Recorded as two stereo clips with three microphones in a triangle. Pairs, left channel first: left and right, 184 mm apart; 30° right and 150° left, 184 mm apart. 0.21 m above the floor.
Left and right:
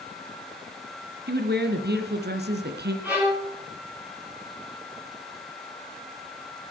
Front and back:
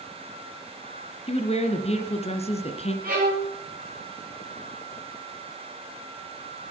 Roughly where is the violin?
Behind.